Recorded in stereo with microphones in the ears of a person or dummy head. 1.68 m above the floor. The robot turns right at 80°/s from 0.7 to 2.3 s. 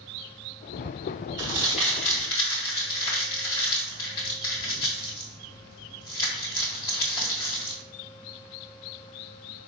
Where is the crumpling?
25° right (ahead or behind), 1.8 m; by 7.8 s 20° left (ahead or behind), 1.8 m.